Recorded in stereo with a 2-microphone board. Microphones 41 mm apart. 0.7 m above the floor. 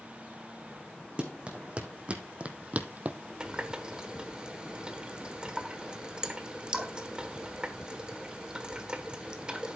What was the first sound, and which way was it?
Running footsteps, 25° right (ahead or behind).